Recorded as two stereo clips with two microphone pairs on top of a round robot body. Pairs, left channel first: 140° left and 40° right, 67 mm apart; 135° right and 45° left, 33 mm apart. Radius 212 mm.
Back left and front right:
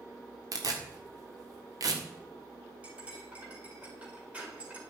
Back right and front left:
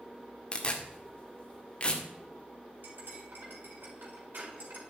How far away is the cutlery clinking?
About 4 m.